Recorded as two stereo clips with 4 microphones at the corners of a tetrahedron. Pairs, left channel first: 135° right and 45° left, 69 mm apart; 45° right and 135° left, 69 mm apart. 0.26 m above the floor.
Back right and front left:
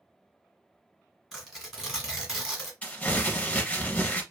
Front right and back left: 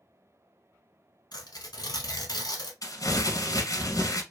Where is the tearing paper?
40° right, 1.2 m.